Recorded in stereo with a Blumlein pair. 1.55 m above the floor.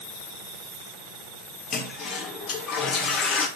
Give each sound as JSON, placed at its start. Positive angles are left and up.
{"t": 1.7, "sound": "a toilet flushing", "azimuth_deg": 25, "distance_m": 3.0}